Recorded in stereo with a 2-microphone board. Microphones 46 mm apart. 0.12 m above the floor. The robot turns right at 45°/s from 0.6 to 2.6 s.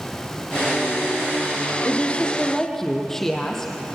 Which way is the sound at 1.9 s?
135° left.